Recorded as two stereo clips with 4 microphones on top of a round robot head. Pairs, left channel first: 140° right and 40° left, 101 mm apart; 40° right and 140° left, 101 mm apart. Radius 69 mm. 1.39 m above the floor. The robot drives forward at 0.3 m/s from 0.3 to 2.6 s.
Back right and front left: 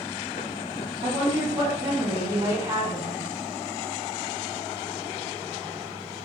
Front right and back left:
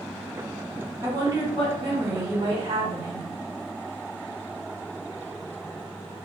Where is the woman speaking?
85° left, 1.9 m; by 3.3 s 95° left, 1.9 m.